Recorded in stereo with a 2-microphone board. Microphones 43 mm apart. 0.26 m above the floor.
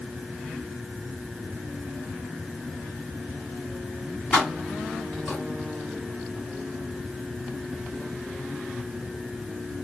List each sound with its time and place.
4.3 s keys jangling: 20° left (ahead or behind), 1.8 m; by 5.4 s 10° left (ahead or behind), 2.5 m